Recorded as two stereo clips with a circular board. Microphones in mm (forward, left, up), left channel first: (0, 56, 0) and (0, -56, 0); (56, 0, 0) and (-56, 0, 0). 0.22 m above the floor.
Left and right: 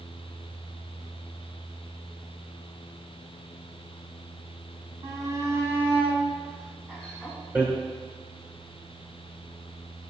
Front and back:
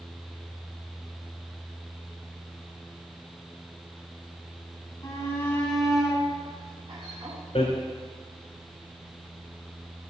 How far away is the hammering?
About 2 m.